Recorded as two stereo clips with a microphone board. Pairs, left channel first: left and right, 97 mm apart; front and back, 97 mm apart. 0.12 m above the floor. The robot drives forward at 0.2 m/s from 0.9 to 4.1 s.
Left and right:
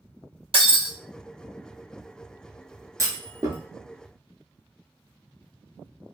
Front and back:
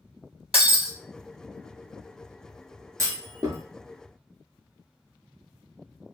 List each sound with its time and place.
0.5 s breaking glass: 95° right, 1.4 m
3.0 s a clunk: 135° right, 0.8 m; by 3.6 s 140° right, 0.9 m